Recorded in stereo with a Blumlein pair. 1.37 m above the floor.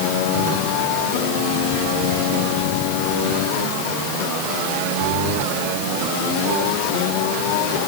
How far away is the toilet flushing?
I don't hear a toilet flushing.